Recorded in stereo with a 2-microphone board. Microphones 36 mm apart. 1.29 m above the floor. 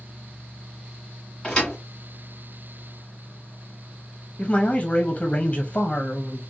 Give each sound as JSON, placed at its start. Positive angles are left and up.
{"t": 1.4, "sound": "a thud", "side_deg": 20, "distance_m": 1.7}
{"t": 4.4, "sound": "a man speaking", "side_deg": 35, "distance_m": 0.7}